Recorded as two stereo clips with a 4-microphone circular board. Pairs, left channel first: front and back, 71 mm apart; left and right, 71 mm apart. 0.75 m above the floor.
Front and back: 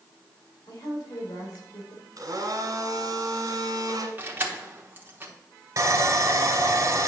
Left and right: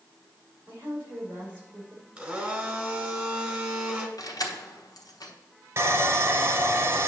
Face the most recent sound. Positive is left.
turn(degrees=-140)